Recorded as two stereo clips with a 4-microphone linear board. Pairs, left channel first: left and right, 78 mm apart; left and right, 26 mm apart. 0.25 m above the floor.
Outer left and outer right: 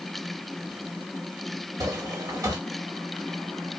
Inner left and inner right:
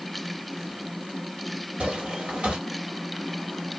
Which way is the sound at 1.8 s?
45° right (ahead or behind).